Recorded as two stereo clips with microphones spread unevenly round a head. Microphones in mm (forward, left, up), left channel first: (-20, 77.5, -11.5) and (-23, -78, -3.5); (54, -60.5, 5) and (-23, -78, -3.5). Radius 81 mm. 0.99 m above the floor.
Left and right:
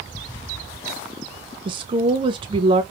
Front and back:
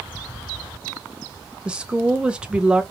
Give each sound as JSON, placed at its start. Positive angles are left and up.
{"t": 1.6, "sound": "a woman speaking", "azimuth_deg": -115, "distance_m": 0.6}